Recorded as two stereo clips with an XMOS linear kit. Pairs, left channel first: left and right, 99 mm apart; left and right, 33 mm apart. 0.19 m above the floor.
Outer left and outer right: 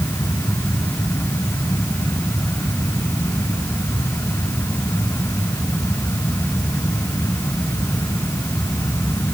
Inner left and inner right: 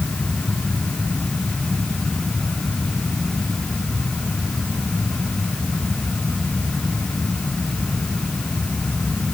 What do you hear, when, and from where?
Only background noise.